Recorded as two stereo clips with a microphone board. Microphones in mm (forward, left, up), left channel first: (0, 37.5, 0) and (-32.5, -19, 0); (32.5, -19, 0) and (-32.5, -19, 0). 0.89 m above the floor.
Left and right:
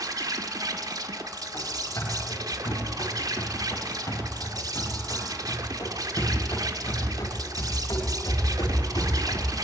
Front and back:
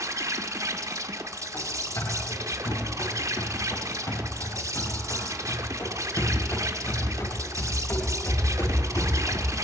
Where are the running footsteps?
20° left, 9.5 m; by 9.5 s 45° left, 7.5 m.